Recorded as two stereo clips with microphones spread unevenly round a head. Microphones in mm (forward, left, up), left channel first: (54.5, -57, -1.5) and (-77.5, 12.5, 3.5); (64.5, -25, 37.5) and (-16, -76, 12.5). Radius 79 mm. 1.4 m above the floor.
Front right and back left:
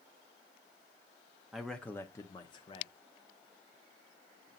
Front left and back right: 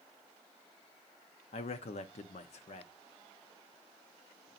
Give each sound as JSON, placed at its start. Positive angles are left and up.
{"t": 1.5, "sound": "a man speaking", "azimuth_deg": 65, "distance_m": 0.7}